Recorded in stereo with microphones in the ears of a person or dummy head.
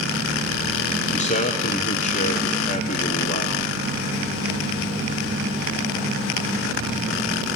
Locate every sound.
1.1 s a man speaking: 40° left (ahead or behind), 0.6 m